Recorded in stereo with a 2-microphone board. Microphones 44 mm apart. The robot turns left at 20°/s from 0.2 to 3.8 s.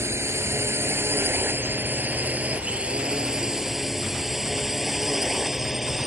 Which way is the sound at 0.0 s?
80° right.